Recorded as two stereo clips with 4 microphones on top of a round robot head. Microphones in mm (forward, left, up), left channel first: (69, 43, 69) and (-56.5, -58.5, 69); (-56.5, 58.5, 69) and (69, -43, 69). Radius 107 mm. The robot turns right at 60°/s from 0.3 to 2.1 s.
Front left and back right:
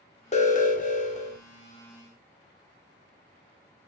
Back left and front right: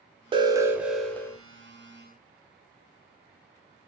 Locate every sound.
0.3 s an alarm: 10° left, 1.2 m; by 1.4 s 75° left, 1.2 m